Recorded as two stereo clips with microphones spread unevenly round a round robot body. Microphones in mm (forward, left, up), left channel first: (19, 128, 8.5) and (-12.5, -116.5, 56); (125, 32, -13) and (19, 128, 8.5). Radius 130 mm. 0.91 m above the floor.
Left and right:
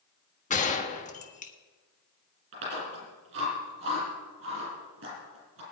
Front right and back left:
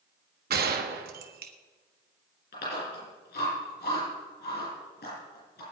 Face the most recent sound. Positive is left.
turn(degrees=-55)